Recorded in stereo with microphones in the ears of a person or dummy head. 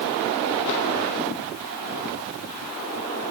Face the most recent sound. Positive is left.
No sound to turn to.